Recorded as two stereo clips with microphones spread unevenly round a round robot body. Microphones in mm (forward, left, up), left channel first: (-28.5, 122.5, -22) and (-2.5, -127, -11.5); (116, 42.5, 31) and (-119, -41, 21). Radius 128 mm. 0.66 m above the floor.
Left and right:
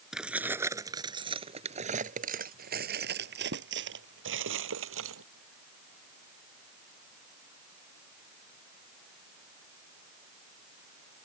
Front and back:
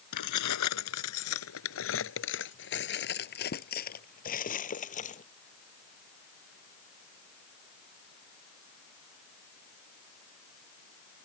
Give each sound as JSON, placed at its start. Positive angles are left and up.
{"t": 0.1, "sound": "keys jangling", "azimuth_deg": 5}